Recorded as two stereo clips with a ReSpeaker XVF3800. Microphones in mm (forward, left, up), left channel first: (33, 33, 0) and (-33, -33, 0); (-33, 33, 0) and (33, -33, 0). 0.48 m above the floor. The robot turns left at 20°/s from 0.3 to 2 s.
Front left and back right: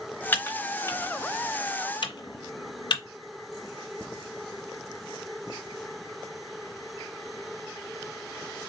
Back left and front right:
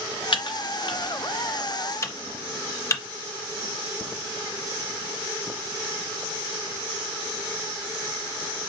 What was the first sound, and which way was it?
Typing on a keyboard, 115° left.